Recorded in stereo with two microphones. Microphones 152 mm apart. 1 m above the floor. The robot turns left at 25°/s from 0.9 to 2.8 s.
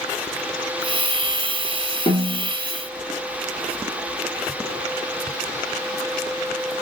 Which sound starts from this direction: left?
A snare drum, at 2.1 s.